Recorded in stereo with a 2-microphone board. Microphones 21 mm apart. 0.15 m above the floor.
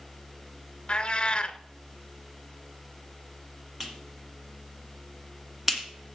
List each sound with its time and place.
0.9 s a cat meowing: 45° left (ahead or behind), 0.6 m
3.8 s a clap: 10° right (ahead or behind), 1.6 m